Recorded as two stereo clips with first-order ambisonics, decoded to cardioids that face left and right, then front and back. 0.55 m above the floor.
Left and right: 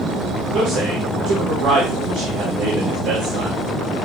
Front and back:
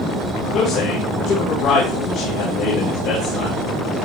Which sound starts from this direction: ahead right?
A man speaking, at 0.5 s.